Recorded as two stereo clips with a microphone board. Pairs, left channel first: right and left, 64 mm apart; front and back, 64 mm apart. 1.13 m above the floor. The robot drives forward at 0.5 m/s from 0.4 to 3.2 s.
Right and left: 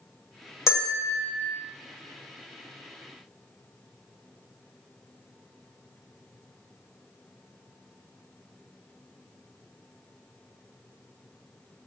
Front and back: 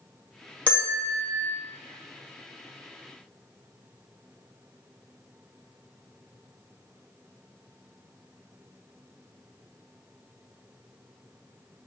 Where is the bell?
65° right, 1.0 m; by 1.4 s 90° right, 1.0 m.